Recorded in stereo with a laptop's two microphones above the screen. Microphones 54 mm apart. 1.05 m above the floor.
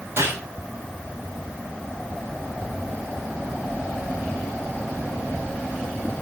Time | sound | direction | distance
0.2 | a gunshot | 50° right (ahead or behind) | 7.5 m